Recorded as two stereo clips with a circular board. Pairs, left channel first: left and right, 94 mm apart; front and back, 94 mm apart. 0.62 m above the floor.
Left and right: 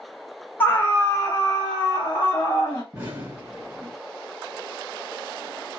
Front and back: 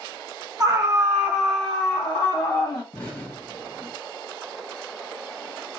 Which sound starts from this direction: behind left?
A scream, at 0.6 s.